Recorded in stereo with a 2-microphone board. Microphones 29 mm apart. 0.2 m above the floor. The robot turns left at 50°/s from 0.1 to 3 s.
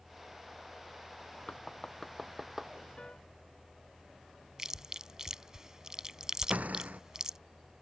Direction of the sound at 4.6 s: 20° right (ahead or behind).